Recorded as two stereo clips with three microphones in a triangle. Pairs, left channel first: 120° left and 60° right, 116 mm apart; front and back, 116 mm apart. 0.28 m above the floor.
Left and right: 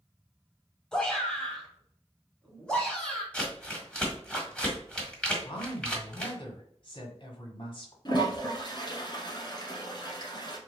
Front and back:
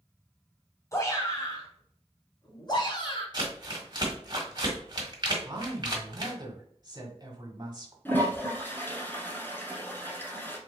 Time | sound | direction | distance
0.9 | a shout | 40° left | 1.8 m
3.3 | crumpling | 160° right | 1.5 m
5.4 | a woman speaking | 140° left | 1.7 m
8.1 | a toilet flushing | 70° left | 1.4 m